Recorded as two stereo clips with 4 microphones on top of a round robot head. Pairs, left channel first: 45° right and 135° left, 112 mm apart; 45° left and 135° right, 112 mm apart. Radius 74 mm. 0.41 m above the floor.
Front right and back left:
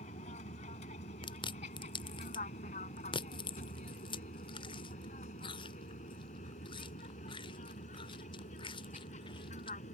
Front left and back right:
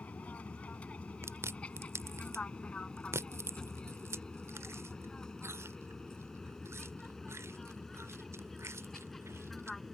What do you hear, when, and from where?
0.0 s an aircraft: 30° right; by 9.9 s 40° right
1.2 s chewing: 70° right